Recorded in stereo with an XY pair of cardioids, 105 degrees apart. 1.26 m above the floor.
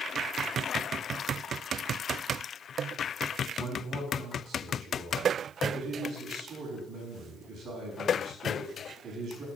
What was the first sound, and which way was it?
A man speaking, 60° right.